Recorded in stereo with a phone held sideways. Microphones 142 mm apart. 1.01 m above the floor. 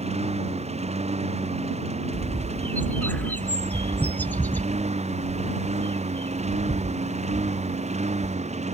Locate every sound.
0.0 s a lawn mower: 50° right (ahead or behind)
2.1 s a bird: 10° left (ahead or behind)